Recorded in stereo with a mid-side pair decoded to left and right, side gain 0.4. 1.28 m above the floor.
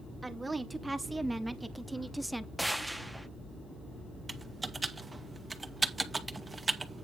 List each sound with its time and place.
0.2 s a woman speaking: 20° right, 2.5 m; by 2.5 s 5° right, 1.0 m
2.6 s a gunshot: 5° right, 1.4 m
4.3 s typing on a keyboard: 25° right, 1.8 m